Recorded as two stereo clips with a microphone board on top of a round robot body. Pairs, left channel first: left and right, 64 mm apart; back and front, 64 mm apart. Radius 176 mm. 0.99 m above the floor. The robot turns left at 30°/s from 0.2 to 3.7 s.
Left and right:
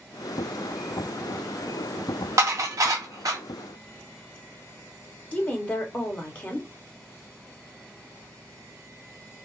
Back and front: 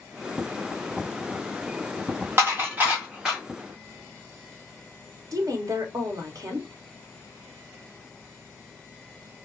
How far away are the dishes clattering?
About 1.0 m.